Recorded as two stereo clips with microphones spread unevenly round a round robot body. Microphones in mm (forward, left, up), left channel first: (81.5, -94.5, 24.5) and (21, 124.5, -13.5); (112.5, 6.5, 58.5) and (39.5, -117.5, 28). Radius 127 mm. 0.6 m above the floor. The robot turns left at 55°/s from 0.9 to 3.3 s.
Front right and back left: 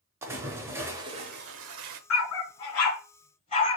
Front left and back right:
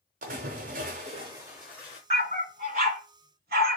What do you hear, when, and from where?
0.2 s a splash: 170° right, 0.7 m; by 2.0 s 125° left, 0.7 m
2.1 s a dog barking: 70° right, 2.5 m; by 3.8 s 135° right, 2.5 m